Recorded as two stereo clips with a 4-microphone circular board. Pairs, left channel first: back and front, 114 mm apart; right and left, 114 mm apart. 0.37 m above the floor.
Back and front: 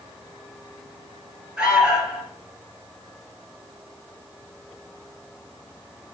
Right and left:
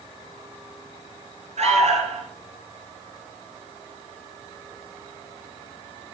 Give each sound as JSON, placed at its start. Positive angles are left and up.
{"t": 1.6, "sound": "an alarm", "azimuth_deg": 80, "distance_m": 4.0}